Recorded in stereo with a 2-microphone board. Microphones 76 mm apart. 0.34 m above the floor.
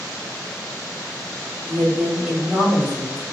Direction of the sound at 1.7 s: 25° right (ahead or behind).